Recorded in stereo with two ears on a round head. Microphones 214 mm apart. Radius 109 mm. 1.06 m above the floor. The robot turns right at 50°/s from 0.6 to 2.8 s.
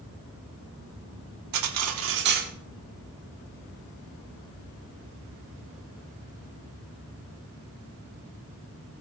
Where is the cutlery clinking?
80° right, 1.6 m; by 2.5 s 30° right, 1.6 m.